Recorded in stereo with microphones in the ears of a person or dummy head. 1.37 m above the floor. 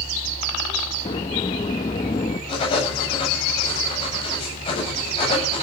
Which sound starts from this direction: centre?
A sliding door, at 1.1 s.